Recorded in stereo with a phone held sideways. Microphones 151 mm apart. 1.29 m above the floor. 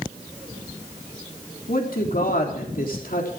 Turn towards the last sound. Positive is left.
turn(degrees=70)  # may be behind; listen again after turning